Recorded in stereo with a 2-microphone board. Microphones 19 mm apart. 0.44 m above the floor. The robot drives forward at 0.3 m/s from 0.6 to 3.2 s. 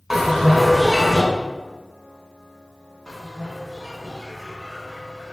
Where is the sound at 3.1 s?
30° left (ahead or behind), 0.6 m.